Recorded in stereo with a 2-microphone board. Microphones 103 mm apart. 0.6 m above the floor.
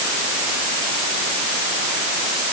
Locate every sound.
Only background noise.